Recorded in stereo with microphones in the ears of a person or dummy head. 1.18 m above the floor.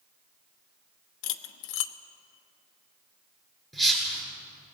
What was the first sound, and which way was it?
Cutlery clinking, 75° left (ahead or behind).